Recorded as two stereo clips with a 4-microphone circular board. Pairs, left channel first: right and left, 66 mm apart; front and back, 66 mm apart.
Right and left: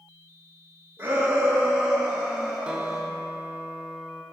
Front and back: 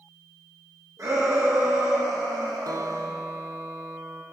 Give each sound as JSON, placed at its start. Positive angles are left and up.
{"t": 1.0, "sound": "a shout", "azimuth_deg": 150, "distance_m": 2.5}
{"t": 2.7, "sound": "a guitar", "azimuth_deg": 165, "distance_m": 0.8}